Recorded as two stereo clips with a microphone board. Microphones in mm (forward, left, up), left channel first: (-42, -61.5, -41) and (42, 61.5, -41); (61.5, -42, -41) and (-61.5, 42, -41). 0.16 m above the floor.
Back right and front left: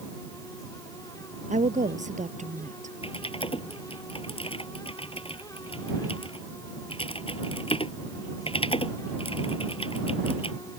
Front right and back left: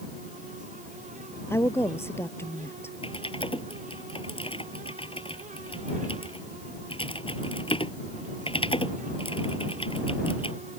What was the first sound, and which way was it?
A woman speaking, 35° left.